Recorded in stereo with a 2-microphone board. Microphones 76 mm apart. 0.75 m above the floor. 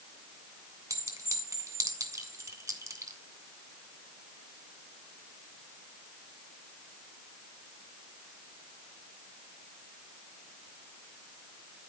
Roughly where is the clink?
Right.